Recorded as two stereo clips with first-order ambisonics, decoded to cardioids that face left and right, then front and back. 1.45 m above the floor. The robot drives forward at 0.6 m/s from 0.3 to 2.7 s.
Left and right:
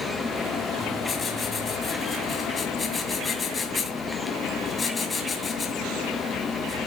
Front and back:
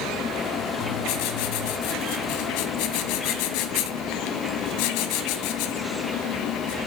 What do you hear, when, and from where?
0.8 s writing: 10° left, 3.5 m; by 6.8 s 15° left, 2.5 m